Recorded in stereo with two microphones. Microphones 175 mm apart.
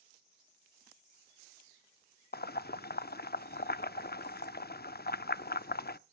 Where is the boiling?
65° left (ahead or behind), 0.5 m.